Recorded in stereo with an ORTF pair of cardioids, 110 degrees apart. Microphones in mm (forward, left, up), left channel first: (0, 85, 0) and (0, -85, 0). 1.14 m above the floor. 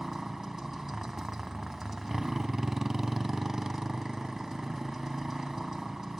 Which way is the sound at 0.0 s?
5° right.